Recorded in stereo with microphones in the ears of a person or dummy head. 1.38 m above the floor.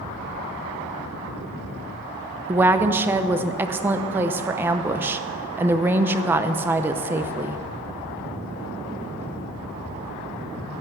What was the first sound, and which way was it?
A woman speaking, 10° right (ahead or behind).